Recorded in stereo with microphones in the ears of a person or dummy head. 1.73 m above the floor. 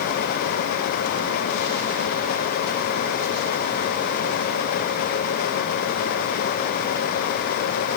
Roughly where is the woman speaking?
I don't hear a woman speaking.